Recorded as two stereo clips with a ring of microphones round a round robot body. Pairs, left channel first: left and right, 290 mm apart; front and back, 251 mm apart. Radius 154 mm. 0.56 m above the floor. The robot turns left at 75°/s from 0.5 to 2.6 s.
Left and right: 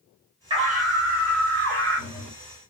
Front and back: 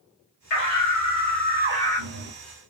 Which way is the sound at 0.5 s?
20° right.